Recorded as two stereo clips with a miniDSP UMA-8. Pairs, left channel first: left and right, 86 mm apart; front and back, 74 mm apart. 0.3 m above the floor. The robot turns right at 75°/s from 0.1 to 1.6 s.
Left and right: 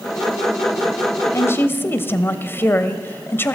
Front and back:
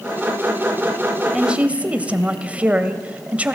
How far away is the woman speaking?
About 1.5 m.